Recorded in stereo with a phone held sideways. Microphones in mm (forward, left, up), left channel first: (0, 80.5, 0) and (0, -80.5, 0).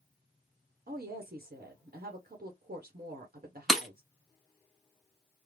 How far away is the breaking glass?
About 0.9 m.